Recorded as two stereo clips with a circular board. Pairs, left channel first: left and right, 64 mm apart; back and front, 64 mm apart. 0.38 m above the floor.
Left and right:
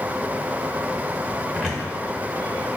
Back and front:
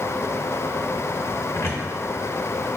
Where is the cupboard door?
170° left, 0.7 m.